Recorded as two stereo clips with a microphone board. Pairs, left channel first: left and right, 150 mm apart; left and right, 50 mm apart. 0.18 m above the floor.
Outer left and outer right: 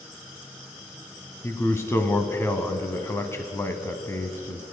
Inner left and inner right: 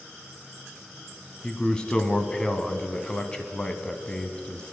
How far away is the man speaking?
About 1.0 m.